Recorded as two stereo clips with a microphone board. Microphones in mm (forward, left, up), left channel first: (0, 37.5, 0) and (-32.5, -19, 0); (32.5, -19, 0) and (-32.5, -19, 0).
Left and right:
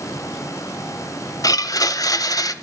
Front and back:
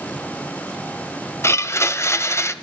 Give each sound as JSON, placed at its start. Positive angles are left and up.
{"t": 1.4, "sound": "a blender", "azimuth_deg": 45, "distance_m": 1.1}